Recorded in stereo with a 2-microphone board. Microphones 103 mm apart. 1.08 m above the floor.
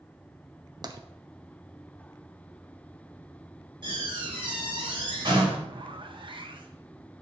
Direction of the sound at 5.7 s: 55° right (ahead or behind).